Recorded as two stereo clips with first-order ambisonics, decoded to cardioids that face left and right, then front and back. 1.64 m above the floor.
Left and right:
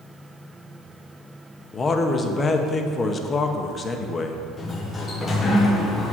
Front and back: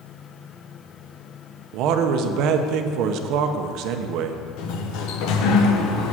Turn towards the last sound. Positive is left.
turn(degrees=20)